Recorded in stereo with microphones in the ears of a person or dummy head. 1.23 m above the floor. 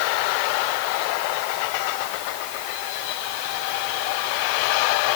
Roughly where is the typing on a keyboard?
I don't hear typing on a keyboard.